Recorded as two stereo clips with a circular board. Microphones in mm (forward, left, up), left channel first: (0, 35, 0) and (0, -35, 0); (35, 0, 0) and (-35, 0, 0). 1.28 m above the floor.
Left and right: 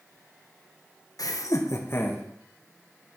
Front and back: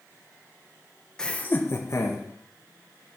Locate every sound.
1.2 s laughter: 75° left, 1.3 m; by 2.2 s 30° left, 2 m